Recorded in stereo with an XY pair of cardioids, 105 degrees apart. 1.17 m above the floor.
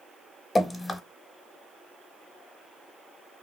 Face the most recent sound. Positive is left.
turn(degrees=25)